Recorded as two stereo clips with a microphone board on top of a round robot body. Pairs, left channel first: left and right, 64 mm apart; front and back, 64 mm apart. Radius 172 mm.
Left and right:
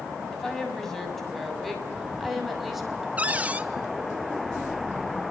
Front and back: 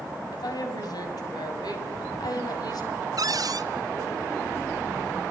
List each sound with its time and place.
0.3 s a woman speaking: 5° left, 7 m; by 3.1 s 5° right, 6.5 m
3.2 s a cupboard door: 160° right, 1.6 m